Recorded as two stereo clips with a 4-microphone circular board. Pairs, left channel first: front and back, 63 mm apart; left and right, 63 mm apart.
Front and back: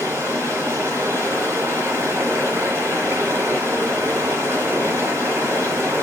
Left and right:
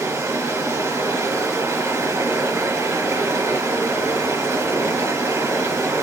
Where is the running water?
135° right, 3 m.